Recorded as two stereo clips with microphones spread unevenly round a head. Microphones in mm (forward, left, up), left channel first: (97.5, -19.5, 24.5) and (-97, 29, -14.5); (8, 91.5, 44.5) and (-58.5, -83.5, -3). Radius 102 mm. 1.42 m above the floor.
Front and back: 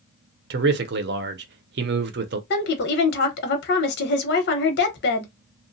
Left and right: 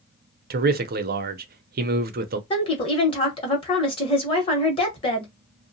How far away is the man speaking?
About 0.6 m.